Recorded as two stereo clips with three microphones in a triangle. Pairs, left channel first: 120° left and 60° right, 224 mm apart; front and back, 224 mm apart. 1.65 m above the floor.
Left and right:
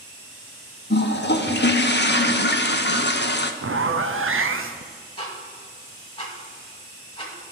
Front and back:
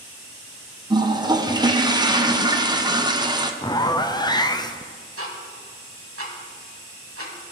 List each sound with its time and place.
0.9 s a toilet flushing: 115° left, 0.6 m
3.6 s a zipper: 75° right, 0.6 m
5.2 s ticking: 175° right, 1.9 m